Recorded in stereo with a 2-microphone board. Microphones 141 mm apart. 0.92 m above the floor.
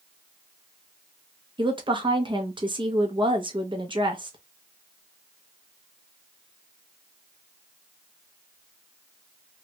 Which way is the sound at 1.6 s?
35° right (ahead or behind).